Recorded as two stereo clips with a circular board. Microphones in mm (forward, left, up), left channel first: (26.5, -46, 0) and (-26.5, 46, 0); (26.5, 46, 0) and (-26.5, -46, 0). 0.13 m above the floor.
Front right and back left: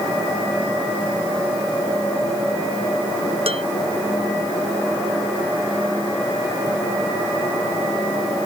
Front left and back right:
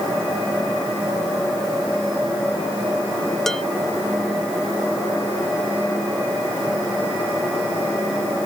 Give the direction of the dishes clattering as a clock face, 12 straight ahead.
7 o'clock.